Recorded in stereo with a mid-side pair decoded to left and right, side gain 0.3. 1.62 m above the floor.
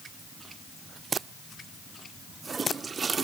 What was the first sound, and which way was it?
Only background noise.